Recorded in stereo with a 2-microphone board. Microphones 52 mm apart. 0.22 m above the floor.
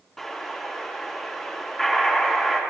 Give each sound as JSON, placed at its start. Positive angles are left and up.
{"t": 0.2, "sound": "an explosion", "side_deg": 5, "distance_m": 2.5}